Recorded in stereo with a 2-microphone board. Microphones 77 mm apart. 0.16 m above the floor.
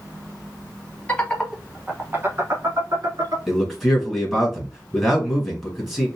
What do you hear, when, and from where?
1.1 s laughter: 20° left (ahead or behind), 1.1 m; by 3.4 s 60° right (ahead or behind), 1.9 m
3.5 s a man speaking: 5° right (ahead or behind), 2 m